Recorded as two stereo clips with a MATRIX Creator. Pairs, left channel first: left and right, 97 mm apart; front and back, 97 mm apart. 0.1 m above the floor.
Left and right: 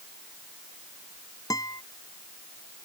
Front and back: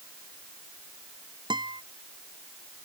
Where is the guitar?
140° left.